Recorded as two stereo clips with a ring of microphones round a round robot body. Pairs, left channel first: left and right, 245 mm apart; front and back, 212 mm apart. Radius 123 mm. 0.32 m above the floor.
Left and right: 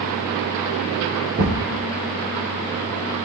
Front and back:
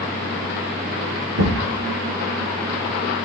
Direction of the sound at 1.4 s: 150° right.